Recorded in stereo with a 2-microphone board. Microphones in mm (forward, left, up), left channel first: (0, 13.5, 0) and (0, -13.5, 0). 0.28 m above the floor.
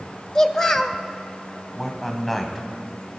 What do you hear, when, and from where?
0.3 s a child speaking: 15° left (ahead or behind), 0.8 m
1.7 s a man speaking: centre (ahead or behind), 2.5 m